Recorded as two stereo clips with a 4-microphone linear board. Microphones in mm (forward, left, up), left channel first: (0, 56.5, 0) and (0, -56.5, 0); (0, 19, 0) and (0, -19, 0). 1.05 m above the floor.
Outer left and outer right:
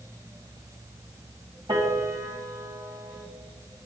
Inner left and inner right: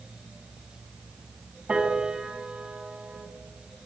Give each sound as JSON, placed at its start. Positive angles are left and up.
{"t": 1.7, "sound": "a piano", "side_deg": -45, "distance_m": 2.5}